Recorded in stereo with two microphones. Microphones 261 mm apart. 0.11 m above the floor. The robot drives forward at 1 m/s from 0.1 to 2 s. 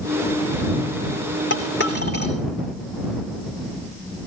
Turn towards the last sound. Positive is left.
turn(degrees=40)  # may be behind; listen again after turning